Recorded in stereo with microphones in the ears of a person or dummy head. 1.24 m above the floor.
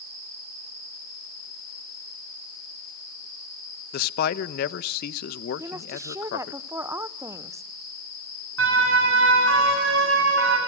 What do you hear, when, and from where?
3.9 s a man speaking: 60° left (ahead or behind), 1.1 m
5.6 s a woman speaking: 20° right (ahead or behind), 0.7 m
8.6 s a siren: 85° right, 9.5 m; by 10.6 s 75° right (ahead or behind), 9 m